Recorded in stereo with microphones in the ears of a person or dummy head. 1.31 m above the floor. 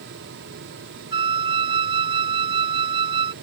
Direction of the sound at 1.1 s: 30° right (ahead or behind).